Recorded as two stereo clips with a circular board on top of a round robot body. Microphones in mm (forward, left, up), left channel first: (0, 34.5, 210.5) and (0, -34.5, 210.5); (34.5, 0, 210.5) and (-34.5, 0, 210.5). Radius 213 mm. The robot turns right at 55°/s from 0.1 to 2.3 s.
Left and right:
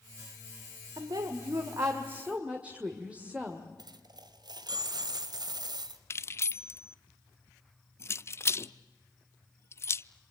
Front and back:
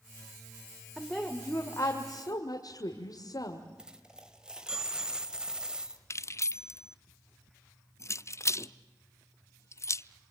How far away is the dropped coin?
About 1.5 m.